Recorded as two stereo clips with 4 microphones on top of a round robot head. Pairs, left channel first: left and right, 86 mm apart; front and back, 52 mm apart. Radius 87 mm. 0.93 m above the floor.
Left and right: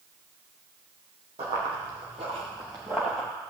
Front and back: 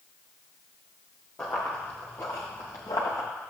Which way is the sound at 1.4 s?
75° right.